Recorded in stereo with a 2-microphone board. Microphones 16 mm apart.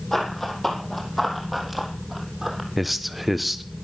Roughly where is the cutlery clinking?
I don't hear cutlery clinking.